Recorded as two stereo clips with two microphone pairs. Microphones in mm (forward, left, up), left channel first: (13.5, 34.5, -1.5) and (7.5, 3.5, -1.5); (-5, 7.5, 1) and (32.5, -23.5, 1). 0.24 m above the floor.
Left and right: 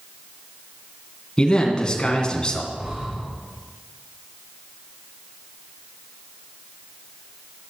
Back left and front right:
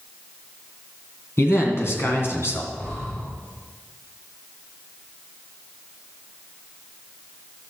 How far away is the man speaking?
About 2.5 m.